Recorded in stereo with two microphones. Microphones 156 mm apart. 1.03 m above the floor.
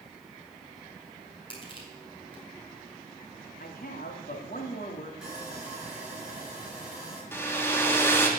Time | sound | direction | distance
1.5 | crushing | 35° left (ahead or behind) | 4 m
3.6 | a man speaking | 70° left (ahead or behind) | 2.5 m
5.2 | sawing | 5° right (ahead or behind) | 5.5 m
7.3 | a hair dryer | 15° left (ahead or behind) | 2 m